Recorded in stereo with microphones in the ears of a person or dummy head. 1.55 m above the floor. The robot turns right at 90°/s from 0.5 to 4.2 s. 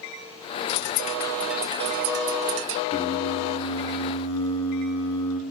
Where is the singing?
30° left, 4 m; by 5.4 s 150° left, 4 m.